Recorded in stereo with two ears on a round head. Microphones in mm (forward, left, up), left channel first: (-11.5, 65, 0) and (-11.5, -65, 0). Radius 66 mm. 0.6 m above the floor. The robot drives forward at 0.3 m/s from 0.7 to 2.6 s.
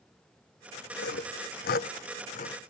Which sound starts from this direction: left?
Sawing, at 1.0 s.